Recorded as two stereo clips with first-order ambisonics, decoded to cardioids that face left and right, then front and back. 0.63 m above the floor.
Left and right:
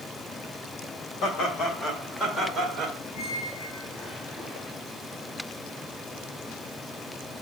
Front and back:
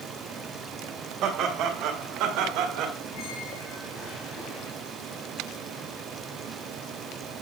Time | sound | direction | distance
1.2 | laughter | 135° left | 2.5 m
3.1 | a squeak | 20° left | 3 m